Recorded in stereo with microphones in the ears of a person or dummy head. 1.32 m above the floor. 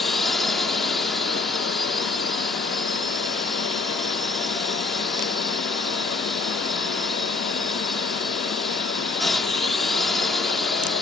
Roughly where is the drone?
Centre.